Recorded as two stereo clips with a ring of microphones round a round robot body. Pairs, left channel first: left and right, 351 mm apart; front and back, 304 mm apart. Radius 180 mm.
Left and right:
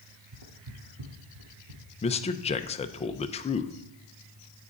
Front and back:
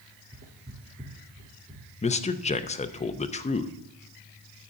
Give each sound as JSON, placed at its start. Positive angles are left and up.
{"t": 0.3, "sound": "footsteps", "azimuth_deg": -120, "distance_m": 1.3}
{"t": 2.0, "sound": "a man speaking", "azimuth_deg": 40, "distance_m": 0.6}